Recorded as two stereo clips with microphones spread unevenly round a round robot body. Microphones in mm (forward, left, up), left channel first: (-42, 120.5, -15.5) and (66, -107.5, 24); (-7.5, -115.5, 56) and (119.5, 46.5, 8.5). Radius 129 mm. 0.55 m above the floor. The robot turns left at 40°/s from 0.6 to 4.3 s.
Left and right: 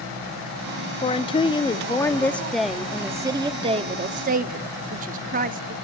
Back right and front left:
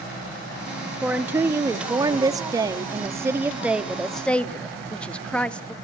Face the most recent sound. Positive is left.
turn(degrees=-25)